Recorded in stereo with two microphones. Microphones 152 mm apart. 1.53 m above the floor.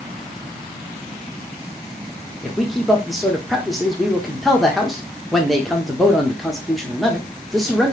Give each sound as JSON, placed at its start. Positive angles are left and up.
{"t": 2.4, "sound": "a man speaking", "side_deg": 0, "distance_m": 0.7}